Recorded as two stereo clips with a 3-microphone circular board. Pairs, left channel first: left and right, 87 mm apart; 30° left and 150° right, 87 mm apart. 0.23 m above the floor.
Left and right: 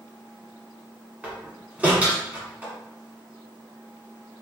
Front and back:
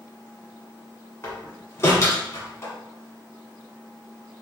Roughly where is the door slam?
Ahead.